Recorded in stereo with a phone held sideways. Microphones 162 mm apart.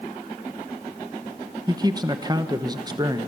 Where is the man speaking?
25° right (ahead or behind), 1.0 m.